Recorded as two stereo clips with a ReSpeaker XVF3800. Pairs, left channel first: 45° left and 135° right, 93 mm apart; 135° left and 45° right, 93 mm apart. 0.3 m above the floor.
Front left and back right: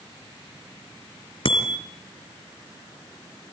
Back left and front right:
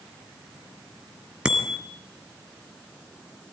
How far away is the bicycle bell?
About 3.5 m.